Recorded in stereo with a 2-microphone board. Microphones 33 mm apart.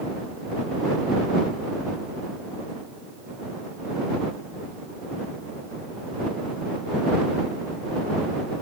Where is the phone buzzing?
I don't hear a phone buzzing.